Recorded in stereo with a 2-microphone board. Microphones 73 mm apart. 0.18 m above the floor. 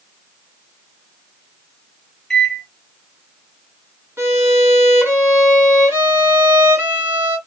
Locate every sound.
2.3 s a microwave: 10° left (ahead or behind), 0.9 m
4.2 s a violin: 35° right (ahead or behind), 1.3 m